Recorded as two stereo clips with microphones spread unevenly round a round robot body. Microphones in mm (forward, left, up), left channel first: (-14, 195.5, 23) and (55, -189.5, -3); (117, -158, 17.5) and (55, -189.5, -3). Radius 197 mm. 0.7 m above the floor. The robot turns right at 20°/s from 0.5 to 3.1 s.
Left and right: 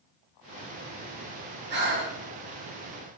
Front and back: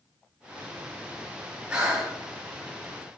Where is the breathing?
115° right, 1.3 m; by 2.2 s 105° right, 1.3 m.